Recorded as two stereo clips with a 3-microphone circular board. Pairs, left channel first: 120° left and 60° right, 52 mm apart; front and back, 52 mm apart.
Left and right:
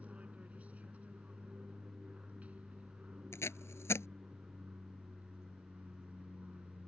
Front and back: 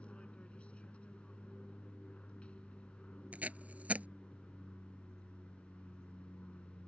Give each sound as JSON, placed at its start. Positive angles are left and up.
{"t": 0.0, "sound": "an aircraft", "azimuth_deg": -40}
{"t": 3.3, "sound": "tape being pulled", "azimuth_deg": 125}